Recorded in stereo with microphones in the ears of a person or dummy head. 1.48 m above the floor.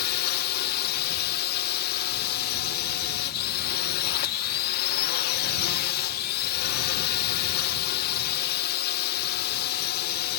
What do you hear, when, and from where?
0.0 s a drone: 55° left (ahead or behind)